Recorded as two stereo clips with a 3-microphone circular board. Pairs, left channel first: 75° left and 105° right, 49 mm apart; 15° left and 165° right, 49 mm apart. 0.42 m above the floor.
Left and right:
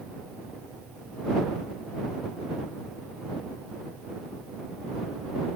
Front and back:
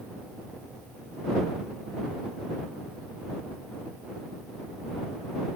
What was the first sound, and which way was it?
Only background noise.